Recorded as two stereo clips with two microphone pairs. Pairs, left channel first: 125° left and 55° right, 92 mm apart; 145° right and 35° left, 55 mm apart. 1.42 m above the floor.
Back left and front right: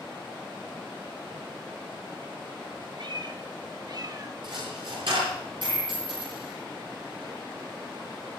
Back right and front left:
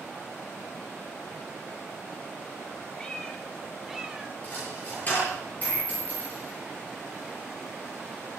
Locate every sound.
3.0 s a cat meowing: 70° right, 2.0 m; by 4.3 s 25° right, 1.3 m
4.4 s a dropped coin: 85° right, 9 m